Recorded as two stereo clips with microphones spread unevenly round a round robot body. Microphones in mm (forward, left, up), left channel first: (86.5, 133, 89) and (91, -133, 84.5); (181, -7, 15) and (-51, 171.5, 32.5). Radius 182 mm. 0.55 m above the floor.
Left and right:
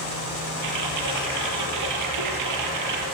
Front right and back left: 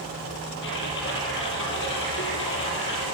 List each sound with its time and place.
0.6 s typing on a keyboard: 100° right, 5 m